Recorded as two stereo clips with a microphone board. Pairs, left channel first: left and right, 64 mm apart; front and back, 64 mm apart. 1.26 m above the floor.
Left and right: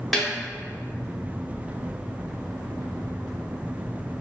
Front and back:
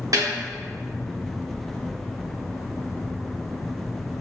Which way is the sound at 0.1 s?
Straight behind.